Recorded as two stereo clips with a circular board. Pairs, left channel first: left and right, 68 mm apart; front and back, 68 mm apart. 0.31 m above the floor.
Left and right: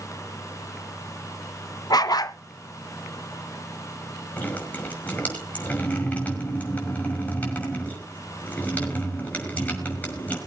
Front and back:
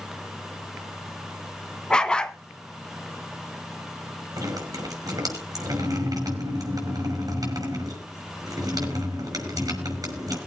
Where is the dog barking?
75° left, 0.8 m.